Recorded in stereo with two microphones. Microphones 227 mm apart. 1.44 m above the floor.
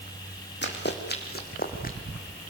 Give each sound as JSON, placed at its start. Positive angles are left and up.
{"t": 0.6, "sound": "running footsteps", "side_deg": 50, "distance_m": 3.5}